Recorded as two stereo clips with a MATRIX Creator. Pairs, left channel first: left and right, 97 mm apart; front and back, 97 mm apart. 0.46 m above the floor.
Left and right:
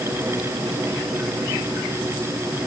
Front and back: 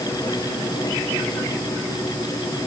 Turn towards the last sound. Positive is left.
No sound to turn to.